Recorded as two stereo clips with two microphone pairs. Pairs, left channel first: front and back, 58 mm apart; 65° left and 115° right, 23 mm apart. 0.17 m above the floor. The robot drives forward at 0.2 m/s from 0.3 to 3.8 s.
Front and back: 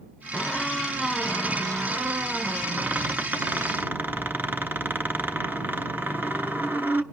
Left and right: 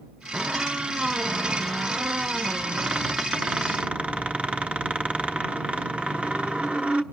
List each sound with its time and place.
0.3 s a squeak: 75° right, 0.9 m; by 7.0 s 125° right, 1.0 m